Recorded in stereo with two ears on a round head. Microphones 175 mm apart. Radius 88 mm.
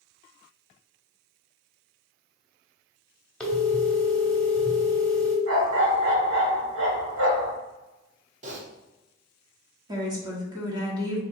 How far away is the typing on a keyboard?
About 0.9 m.